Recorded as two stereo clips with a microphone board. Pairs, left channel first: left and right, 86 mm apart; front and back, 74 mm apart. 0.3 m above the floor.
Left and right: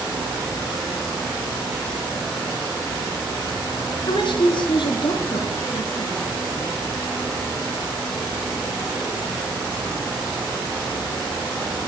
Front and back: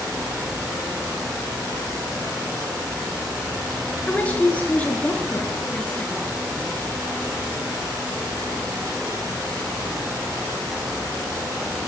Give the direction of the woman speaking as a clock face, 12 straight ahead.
10 o'clock.